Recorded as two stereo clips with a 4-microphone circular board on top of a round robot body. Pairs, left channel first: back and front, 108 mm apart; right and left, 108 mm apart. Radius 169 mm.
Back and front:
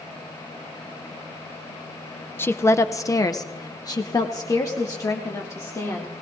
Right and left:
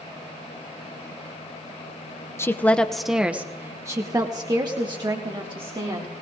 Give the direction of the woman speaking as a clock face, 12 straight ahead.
4 o'clock.